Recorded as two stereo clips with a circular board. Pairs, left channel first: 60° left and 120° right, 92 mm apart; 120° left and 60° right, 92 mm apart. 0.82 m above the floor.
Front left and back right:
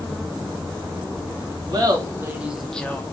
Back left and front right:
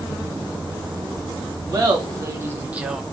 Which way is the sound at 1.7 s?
95° right.